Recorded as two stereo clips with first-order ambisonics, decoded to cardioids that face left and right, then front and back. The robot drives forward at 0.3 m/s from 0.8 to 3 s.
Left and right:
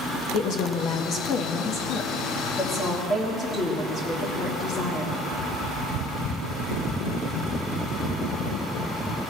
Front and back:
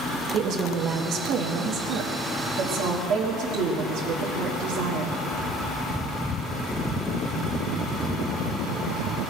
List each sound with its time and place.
0.3 s a woman speaking: 135° left, 0.9 m; by 5.2 s 155° left, 1.5 m